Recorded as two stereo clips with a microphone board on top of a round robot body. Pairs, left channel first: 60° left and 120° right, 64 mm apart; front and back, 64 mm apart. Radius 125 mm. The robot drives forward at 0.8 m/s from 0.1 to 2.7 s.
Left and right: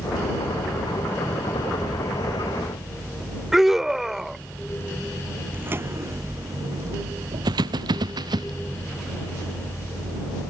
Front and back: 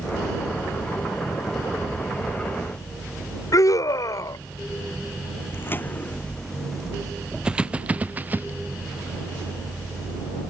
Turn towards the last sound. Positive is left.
turn(degrees=-120)